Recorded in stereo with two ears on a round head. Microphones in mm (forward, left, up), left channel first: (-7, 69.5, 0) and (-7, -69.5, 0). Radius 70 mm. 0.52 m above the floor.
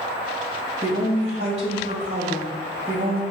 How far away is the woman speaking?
About 2.5 m.